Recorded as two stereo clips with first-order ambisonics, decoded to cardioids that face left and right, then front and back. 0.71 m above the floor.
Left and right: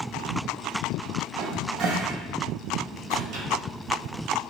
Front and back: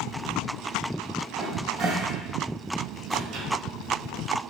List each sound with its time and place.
1.4 s a cupboard door: 120° right, 0.7 m